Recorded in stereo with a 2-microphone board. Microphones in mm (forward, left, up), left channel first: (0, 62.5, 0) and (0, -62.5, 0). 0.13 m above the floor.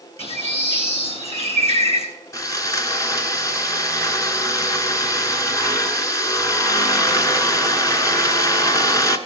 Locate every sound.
0.2 s a bird: 55° left (ahead or behind), 3.5 m
2.3 s sawing: 25° left (ahead or behind), 1.1 m